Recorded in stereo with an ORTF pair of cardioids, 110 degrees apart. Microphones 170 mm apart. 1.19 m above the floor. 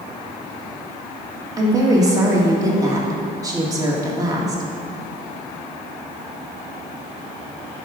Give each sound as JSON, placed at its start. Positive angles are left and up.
{"t": 1.6, "sound": "a woman speaking", "azimuth_deg": -20, "distance_m": 2.0}